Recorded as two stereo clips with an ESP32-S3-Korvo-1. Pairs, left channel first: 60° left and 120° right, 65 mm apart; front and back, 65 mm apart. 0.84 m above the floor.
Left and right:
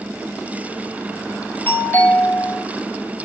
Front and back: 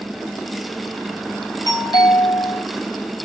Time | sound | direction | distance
1.7 | a doorbell | 5° right | 4.5 m